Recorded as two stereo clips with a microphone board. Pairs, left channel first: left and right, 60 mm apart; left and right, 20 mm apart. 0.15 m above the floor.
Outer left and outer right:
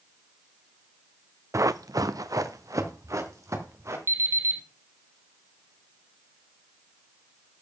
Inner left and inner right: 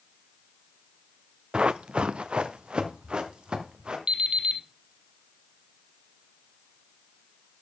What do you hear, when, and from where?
1.5 s running footsteps: 60° right (ahead or behind), 0.7 m; by 4.0 s 55° right (ahead or behind), 4 m
4.1 s an alarm clock: 55° right (ahead or behind), 2.5 m